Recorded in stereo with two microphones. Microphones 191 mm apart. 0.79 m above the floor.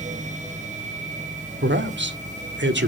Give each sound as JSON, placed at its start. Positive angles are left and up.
{"t": 1.6, "sound": "a man speaking", "side_deg": -75, "distance_m": 2.0}